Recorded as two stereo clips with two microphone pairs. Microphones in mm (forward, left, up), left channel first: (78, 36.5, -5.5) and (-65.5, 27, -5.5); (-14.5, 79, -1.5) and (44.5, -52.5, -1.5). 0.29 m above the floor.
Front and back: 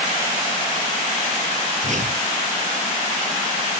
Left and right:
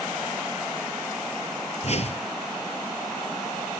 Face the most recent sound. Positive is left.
turn(degrees=155)